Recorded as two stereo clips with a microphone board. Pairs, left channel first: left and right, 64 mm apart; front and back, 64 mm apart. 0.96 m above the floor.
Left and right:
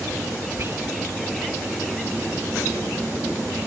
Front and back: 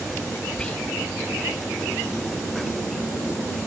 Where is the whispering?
65° right.